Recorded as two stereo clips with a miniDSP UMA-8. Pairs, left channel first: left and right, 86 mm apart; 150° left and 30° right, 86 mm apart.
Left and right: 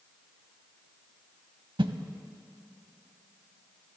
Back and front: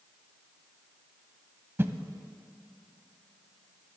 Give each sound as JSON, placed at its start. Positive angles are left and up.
{"t": 1.8, "sound": "a whoosh", "azimuth_deg": -90, "distance_m": 0.6}